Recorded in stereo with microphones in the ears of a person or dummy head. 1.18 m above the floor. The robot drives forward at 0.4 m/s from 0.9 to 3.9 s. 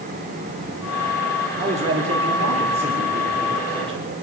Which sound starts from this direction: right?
A man speaking, at 1.6 s.